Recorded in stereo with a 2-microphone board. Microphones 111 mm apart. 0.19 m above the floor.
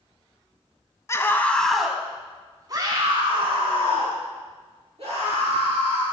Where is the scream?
25° left (ahead or behind), 1.4 m; by 6.0 s 75° right (ahead or behind), 4.5 m.